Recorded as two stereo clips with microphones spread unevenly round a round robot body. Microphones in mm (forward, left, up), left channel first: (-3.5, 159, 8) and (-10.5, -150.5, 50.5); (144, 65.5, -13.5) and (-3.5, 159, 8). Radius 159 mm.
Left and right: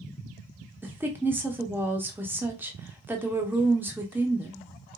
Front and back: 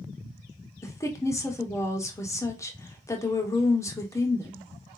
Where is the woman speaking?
Straight ahead, 0.7 m.